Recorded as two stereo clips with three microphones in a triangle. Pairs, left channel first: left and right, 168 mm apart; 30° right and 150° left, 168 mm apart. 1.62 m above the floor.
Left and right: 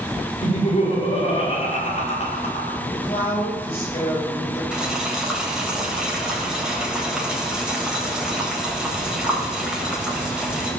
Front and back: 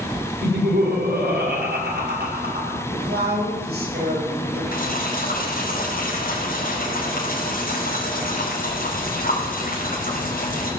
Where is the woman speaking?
145° left, 8.5 m.